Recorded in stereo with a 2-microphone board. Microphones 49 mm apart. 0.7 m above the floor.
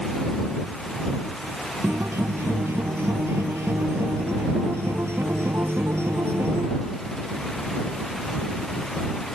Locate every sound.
1.8 s a guitar: 60° right (ahead or behind)